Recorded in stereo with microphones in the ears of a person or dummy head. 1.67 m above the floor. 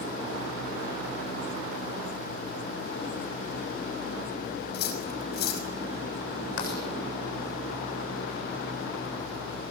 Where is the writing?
65° left (ahead or behind), 7.5 m.